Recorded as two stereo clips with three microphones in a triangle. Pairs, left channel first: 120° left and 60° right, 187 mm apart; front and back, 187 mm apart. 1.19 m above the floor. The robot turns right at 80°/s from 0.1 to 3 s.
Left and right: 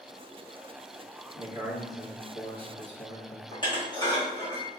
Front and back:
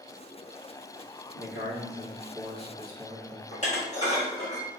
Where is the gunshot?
No gunshot in this recording.